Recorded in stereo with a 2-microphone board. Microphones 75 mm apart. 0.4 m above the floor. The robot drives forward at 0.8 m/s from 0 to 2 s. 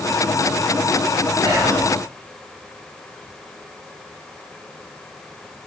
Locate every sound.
1.4 s whispering: 70° right (ahead or behind), 3.5 m